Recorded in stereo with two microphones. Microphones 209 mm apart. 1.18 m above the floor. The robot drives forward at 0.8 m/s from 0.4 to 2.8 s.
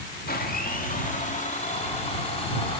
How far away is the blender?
About 2.5 m.